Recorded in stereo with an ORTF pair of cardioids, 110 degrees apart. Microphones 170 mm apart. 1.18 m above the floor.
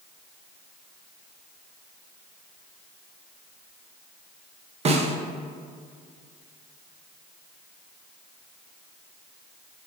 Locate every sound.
4.8 s a snare drum: 40° right, 0.8 m